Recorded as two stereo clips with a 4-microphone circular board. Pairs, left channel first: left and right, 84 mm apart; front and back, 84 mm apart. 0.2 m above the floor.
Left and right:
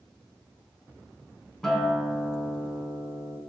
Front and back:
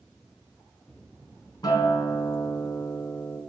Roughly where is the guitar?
Ahead.